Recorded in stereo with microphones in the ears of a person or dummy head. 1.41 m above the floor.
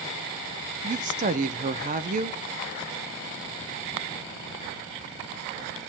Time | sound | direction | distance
0.8 | a woman speaking | 40° right (ahead or behind) | 0.6 m